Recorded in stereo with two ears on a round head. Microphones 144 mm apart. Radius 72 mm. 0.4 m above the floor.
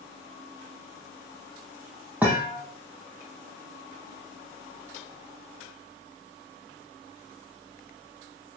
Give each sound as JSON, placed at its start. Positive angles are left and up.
{"t": 2.2, "sound": "a thud", "side_deg": -10, "distance_m": 5.5}